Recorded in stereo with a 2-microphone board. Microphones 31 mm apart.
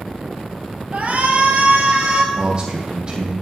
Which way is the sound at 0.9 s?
55° right (ahead or behind).